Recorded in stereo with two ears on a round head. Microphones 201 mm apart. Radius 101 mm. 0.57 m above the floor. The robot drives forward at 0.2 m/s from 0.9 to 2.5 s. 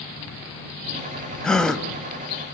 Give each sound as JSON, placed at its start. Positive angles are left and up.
{"t": 1.4, "sound": "a gasp", "side_deg": 5, "distance_m": 1.0}